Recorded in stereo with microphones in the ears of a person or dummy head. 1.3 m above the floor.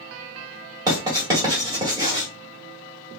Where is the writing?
20° right (ahead or behind), 1.6 m.